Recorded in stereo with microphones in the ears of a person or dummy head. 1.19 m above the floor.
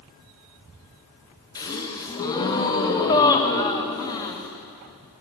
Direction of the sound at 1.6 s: 20° left (ahead or behind).